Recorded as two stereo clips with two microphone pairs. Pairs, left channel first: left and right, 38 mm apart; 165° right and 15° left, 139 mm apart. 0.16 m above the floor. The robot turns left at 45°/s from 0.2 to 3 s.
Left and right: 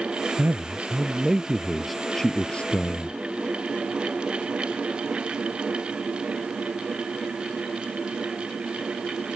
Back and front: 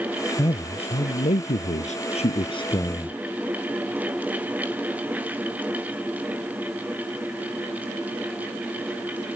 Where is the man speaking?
110° right; by 3.2 s 130° left.